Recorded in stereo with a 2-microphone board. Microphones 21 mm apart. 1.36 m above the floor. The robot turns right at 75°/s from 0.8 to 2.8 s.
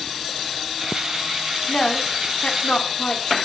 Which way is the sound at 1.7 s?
35° left (ahead or behind).